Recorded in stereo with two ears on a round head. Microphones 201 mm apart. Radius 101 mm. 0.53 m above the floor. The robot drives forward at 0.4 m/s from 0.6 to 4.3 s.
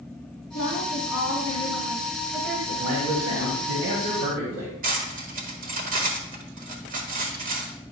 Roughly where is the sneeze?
I don't hear a sneeze.